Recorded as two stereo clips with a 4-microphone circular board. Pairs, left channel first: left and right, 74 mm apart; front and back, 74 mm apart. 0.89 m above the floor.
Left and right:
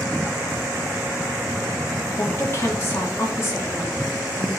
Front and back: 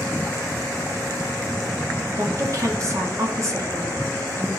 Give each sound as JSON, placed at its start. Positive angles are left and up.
{"t": 2.2, "sound": "a woman speaking", "azimuth_deg": 140, "distance_m": 2.0}